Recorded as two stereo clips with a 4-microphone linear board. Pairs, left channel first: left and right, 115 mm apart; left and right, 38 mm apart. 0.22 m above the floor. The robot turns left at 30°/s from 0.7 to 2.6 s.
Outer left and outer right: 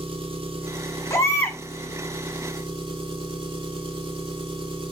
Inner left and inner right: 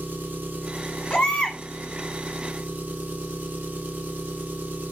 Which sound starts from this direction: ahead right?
An engine running, at 0.0 s.